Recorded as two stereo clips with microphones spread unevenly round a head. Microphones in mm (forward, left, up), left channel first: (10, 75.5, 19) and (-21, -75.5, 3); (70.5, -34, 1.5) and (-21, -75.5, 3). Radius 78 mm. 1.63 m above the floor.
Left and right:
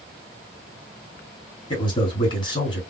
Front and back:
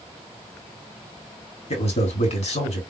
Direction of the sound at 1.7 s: 15° left.